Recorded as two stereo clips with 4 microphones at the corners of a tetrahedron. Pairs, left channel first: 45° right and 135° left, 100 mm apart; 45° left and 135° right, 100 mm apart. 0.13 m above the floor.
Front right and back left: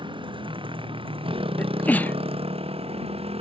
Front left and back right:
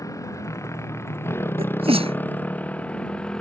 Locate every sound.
0.0 s a motorcycle: 100° left; by 3.4 s 125° left
1.6 s a sneeze: 120° right